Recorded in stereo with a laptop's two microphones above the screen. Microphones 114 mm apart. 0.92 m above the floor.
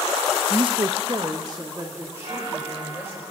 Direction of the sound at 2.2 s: 80° right.